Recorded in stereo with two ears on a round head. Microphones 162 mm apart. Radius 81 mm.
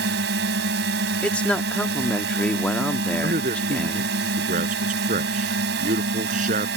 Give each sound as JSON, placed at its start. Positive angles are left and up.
{"t": 0.0, "sound": "a drone", "side_deg": -65}
{"t": 1.2, "sound": "a man speaking", "side_deg": 5}
{"t": 3.2, "sound": "a man speaking", "side_deg": -45}